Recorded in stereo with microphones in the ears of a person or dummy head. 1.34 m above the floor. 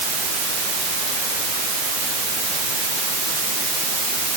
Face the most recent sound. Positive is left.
No sound to turn to.